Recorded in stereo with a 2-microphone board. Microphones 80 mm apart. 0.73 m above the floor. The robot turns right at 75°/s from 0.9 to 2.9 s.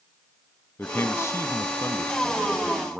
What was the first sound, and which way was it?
A man speaking, 45° left.